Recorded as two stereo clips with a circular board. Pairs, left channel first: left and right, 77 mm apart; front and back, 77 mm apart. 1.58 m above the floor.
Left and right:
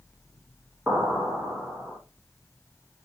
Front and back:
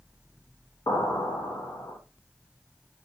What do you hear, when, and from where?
0.9 s an explosion: 10° right, 1.8 m